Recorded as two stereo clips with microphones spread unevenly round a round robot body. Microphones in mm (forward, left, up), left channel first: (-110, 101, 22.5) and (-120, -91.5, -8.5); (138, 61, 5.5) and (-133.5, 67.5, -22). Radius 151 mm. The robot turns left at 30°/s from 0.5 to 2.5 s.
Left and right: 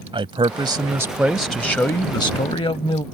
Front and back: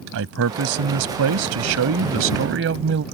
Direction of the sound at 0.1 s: 150° right.